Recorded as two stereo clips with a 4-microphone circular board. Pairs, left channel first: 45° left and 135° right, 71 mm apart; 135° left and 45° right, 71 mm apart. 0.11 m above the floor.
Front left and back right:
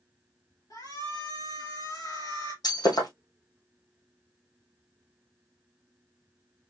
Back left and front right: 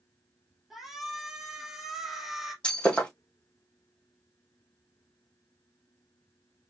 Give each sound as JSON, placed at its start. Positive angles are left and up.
{"t": 0.7, "sound": "a shout", "azimuth_deg": 40, "distance_m": 2.5}
{"t": 2.6, "sound": "breaking glass", "azimuth_deg": 60, "distance_m": 3.0}